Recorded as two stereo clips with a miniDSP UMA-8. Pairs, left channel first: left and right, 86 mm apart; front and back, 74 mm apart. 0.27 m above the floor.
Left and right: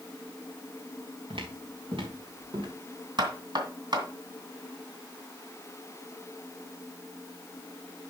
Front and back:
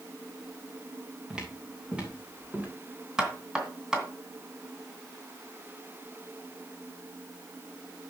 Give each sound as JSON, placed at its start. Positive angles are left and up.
{"t": 1.3, "sound": "footsteps", "azimuth_deg": -100, "distance_m": 3.5}
{"t": 3.2, "sound": "knocking", "azimuth_deg": -100, "distance_m": 2.5}